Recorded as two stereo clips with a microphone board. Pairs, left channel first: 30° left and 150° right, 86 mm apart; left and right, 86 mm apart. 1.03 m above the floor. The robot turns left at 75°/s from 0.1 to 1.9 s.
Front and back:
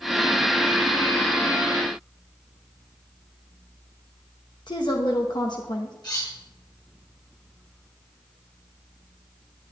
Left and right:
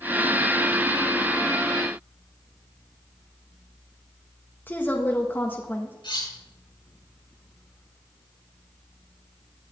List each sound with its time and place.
4.7 s a woman speaking: 25° left, 1.6 m
6.0 s cutlery clinking: 70° left, 5 m